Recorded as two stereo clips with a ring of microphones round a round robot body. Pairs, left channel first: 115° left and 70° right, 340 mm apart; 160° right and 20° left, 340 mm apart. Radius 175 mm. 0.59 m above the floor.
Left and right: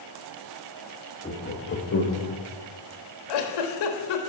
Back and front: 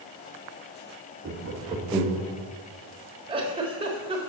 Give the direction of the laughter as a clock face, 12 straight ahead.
10 o'clock.